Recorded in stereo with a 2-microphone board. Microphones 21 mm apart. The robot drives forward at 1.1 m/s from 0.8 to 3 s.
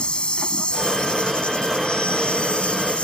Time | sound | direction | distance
0.0 | an insect | 55° left (ahead or behind) | ?